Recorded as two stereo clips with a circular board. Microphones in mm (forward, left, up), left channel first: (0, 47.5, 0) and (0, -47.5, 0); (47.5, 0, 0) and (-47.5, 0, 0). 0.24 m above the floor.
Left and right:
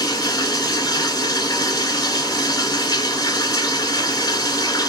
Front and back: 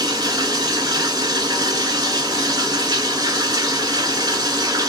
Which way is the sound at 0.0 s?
135° left.